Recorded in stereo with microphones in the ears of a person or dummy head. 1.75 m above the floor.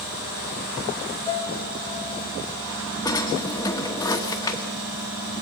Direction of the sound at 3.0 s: 20° left (ahead or behind).